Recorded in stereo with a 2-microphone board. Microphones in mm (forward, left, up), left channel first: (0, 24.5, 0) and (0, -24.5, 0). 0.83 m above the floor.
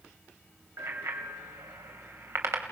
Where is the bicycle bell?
80° right, 3 m.